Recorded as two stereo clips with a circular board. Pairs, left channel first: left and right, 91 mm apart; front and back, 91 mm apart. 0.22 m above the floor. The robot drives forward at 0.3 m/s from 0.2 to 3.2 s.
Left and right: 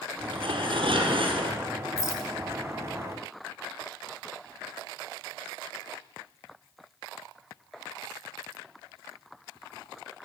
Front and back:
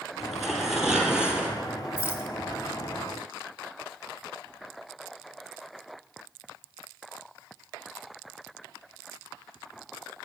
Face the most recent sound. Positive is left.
turn(degrees=65)